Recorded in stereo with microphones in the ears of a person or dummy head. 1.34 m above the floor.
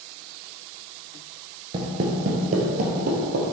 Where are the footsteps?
30° right (ahead or behind), 1.5 m; by 3.4 s 55° right (ahead or behind), 2.5 m.